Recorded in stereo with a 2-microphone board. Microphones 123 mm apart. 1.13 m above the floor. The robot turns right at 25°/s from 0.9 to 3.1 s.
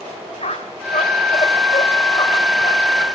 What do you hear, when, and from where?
0.4 s a squeak: 70° left (ahead or behind), 1.8 m; by 3.1 s 30° left (ahead or behind), 1.8 m